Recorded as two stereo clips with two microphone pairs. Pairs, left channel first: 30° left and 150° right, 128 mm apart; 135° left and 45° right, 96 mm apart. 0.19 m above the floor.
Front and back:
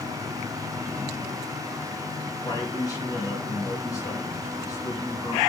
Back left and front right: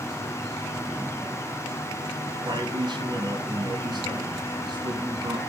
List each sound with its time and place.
2.4 s a man speaking: 25° right, 2.5 m